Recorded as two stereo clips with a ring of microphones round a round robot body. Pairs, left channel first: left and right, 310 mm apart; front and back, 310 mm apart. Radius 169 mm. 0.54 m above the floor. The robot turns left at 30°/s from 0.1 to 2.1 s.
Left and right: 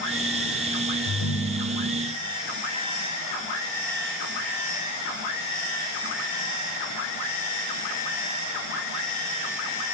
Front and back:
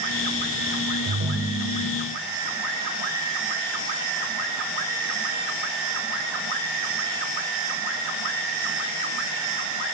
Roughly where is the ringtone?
Behind left.